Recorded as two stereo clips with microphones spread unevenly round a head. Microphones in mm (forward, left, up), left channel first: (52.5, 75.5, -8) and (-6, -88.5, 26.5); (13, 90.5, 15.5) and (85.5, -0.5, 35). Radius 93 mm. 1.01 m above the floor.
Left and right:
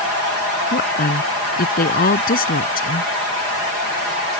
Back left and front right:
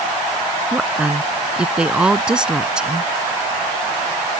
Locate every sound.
0.7 s a woman speaking: 30° left